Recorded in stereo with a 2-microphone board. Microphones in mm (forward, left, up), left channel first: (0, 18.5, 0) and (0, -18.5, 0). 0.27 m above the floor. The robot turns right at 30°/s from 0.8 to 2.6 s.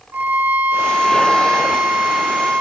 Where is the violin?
65° right, 1.3 m; by 2.6 s 10° right, 1.3 m.